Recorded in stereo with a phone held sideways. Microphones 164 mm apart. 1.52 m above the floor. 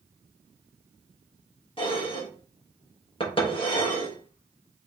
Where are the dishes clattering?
35° left (ahead or behind), 1.2 m.